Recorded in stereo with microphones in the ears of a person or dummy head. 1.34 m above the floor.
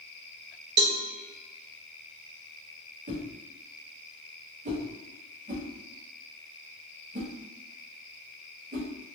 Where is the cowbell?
55° right (ahead or behind), 0.9 m.